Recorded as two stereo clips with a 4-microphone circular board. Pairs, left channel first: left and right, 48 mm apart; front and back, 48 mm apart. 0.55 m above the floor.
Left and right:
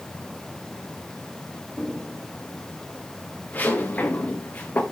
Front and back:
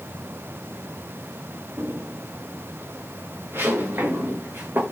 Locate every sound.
1.8 s footsteps: 145° left, 5 m; by 4.8 s 140° left, 2 m